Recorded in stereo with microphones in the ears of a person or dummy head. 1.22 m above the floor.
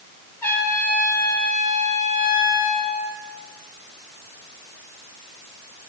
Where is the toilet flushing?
I don't hear a toilet flushing.